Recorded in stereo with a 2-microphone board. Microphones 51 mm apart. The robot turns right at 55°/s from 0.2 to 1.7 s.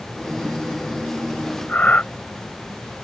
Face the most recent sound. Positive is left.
turn(degrees=35)  # may be behind; listen again after turning